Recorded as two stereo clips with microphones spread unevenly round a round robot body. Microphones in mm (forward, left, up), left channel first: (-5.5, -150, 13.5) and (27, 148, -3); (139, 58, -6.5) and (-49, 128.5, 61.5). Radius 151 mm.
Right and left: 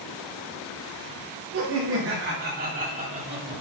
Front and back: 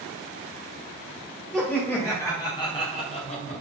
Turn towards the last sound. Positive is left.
turn(degrees=15)